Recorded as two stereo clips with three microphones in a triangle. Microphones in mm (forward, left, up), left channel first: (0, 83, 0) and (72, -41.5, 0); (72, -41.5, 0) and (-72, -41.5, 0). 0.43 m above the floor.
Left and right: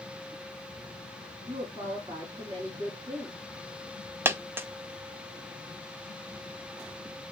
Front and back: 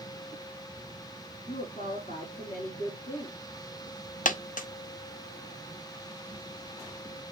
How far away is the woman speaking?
About 3.5 m.